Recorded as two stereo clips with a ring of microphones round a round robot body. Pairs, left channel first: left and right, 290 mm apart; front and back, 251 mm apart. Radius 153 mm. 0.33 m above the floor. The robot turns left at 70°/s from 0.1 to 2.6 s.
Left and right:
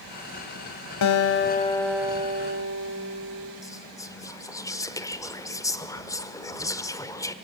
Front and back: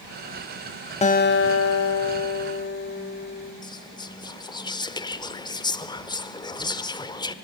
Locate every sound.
1.0 s a guitar: 65° left, 1.1 m; by 3.5 s 45° right, 1.1 m
3.6 s whispering: 35° left, 1.1 m